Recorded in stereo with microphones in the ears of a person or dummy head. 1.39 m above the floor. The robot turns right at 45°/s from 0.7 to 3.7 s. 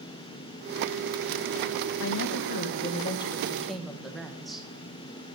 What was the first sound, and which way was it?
A woman speaking, 100° left.